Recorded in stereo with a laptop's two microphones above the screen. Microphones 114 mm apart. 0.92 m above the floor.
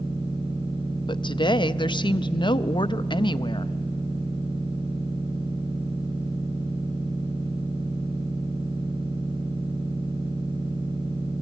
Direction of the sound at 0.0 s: 55° right (ahead or behind).